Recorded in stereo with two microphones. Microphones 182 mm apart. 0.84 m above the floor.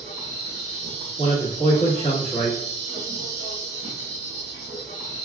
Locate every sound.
0.0 s an insect: 35° right (ahead or behind), 2.5 m
1.2 s a man speaking: 35° left (ahead or behind), 1.6 m